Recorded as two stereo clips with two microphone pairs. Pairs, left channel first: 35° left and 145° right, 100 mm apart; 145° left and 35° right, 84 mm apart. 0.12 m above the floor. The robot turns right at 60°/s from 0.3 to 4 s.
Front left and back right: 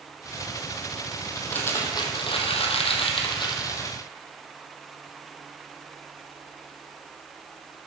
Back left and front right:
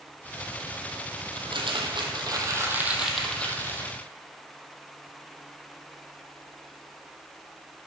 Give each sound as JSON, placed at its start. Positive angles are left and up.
{"t": 1.4, "sound": "crumpling", "azimuth_deg": -50, "distance_m": 1.3}